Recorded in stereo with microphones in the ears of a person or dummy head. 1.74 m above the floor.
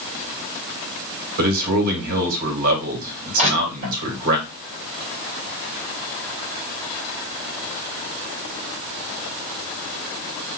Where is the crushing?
35° right (ahead or behind), 3 m.